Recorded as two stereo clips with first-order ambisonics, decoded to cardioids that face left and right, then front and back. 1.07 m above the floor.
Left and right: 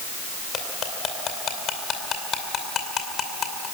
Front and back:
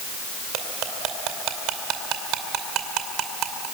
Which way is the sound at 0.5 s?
150° left.